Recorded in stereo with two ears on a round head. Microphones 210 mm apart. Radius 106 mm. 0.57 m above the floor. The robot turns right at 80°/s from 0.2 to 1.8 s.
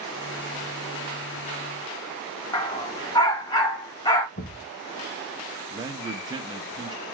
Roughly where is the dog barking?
Centre.